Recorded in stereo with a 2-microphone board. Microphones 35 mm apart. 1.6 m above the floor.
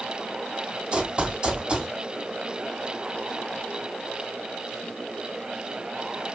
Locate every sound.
0.9 s running footsteps: 30° right (ahead or behind), 2.5 m